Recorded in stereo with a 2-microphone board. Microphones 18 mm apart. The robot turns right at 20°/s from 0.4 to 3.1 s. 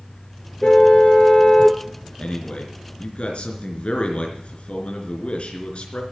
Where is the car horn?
60° left (ahead or behind), 2.5 m; by 1.8 s 80° left, 2.5 m.